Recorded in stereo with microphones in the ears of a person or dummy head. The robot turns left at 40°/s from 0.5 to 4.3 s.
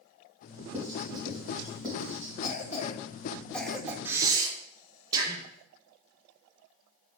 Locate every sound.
0.7 s writing: 20° right (ahead or behind), 3 m; by 2.3 s 45° left (ahead or behind), 3 m
2.4 s a cough: 50° left (ahead or behind), 1.0 m; by 4.0 s 10° right (ahead or behind), 1.0 m
4.0 s breathing: 10° right (ahead or behind), 1.0 m; by 5.5 s 20° right (ahead or behind), 1.0 m